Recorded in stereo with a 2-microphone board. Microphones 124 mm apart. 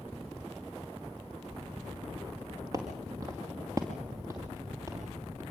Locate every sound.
2.7 s footsteps: 30° right (ahead or behind), 5 m; by 5.4 s 20° right (ahead or behind), 7 m